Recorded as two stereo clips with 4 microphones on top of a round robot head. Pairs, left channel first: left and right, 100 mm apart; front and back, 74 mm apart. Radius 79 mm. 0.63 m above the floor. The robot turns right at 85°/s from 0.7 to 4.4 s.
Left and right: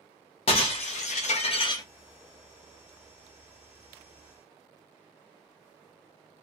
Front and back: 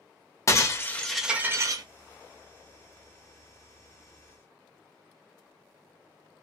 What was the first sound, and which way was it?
Breaking glass, 50° left.